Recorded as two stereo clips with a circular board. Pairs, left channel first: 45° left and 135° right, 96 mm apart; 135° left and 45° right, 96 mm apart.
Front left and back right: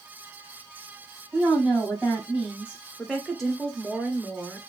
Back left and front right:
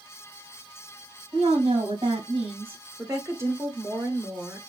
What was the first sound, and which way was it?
A woman speaking, 55° right.